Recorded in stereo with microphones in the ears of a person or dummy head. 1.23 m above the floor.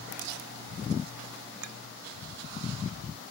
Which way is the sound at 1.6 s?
90° right.